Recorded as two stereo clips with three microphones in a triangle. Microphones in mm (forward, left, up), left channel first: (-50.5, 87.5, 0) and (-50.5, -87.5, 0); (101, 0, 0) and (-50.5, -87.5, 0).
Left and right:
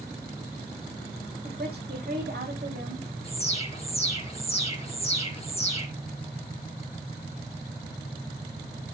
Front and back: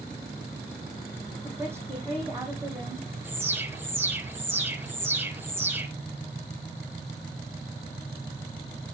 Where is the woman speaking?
75° right, 5.5 m.